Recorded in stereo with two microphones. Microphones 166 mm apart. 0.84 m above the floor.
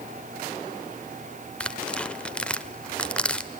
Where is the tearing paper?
5° left (ahead or behind), 0.8 m.